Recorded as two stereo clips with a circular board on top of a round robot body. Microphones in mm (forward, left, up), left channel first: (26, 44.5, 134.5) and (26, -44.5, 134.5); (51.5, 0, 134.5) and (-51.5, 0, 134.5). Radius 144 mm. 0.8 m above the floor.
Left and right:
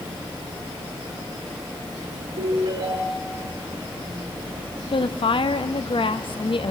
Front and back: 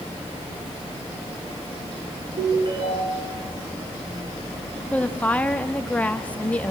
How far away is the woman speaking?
About 1.5 m.